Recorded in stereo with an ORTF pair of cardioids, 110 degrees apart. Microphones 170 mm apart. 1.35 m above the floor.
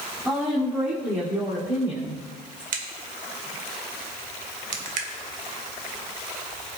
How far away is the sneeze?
No sneeze in this recording.